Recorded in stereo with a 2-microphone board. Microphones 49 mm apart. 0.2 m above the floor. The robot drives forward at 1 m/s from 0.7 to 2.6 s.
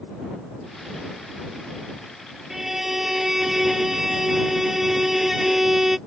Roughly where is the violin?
Centre.